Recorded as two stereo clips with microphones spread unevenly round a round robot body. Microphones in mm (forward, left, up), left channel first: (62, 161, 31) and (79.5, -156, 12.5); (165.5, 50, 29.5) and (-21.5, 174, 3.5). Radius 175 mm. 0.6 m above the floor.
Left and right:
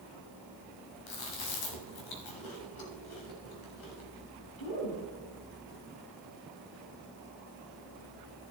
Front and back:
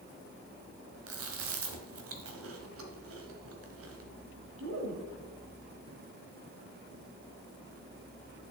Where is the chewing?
125° left, 1.5 m.